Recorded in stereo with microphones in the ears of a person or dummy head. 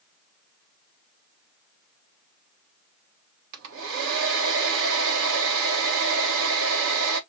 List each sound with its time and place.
3.5 s a hair dryer: 75° right (ahead or behind), 1.2 m